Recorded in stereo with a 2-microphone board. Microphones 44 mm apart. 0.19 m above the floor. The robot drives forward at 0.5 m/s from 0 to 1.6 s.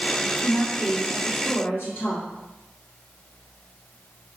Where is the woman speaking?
50° left (ahead or behind), 1.6 m.